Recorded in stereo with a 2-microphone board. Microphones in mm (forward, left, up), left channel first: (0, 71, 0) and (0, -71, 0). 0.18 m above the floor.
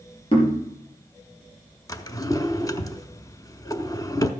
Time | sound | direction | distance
0.3 | knocking | 35° left (ahead or behind) | 4 m
1.9 | a drawer | 25° left (ahead or behind) | 0.7 m